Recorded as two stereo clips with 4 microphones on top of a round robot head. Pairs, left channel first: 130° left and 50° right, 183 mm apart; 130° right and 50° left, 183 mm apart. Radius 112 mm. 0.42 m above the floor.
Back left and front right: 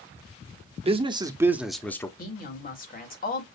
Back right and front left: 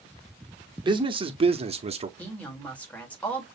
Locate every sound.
0.8 s a man speaking: 5° right, 1.1 m; by 2.1 s 70° left, 0.9 m
2.2 s a woman speaking: 150° left, 2 m